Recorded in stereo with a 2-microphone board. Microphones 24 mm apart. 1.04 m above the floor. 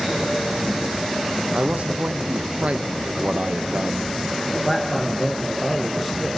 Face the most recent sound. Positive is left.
turn(degrees=5)  # may be behind; listen again after turning